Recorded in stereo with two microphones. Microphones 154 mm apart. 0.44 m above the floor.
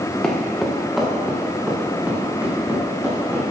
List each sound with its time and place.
0.2 s footsteps: 5° left (ahead or behind), 3 m; by 3.4 s 15° right (ahead or behind), 5.5 m